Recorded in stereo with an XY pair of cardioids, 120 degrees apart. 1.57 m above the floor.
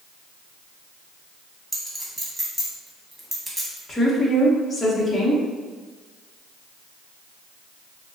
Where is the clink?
10° right, 1.5 m.